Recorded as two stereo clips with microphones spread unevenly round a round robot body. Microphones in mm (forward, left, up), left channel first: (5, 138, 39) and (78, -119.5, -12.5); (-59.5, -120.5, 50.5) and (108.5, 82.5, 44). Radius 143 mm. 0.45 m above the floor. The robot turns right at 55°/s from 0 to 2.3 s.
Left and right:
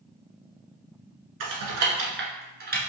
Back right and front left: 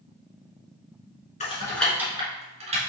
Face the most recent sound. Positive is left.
turn(degrees=-15)